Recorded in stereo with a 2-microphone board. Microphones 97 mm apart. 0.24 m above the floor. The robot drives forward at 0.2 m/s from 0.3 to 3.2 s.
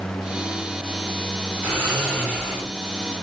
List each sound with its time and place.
1.6 s snoring: 15° left (ahead or behind), 1.8 m